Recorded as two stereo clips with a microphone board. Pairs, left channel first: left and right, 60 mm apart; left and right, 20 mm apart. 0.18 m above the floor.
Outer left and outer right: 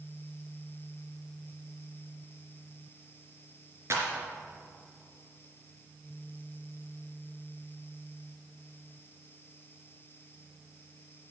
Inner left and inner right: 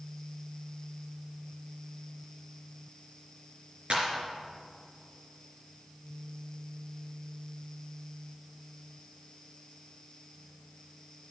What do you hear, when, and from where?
3.9 s a clap: 50° right (ahead or behind), 2.5 m